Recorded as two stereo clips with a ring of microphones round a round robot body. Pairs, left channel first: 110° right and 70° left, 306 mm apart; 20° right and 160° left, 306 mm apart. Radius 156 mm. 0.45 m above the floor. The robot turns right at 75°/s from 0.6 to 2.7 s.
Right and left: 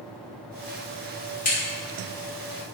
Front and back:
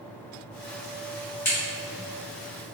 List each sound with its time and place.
1.4 s a crack: 95° right, 1.4 m; by 1.6 s 85° right, 1.4 m